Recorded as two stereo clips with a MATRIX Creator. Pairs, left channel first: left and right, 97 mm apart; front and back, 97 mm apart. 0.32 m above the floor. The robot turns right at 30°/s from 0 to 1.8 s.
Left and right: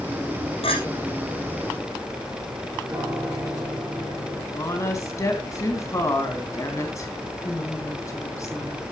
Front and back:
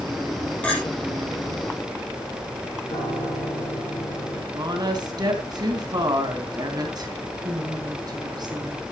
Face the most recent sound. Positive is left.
turn(degrees=145)